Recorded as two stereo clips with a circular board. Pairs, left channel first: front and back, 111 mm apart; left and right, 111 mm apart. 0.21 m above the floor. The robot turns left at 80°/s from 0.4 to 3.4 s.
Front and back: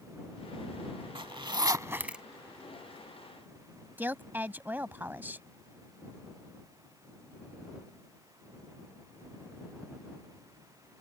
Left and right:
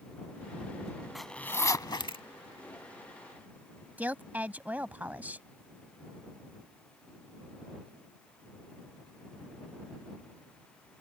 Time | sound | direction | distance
1.1 | a zipper | 175° right | ?
4.0 | a woman speaking | 140° right | ?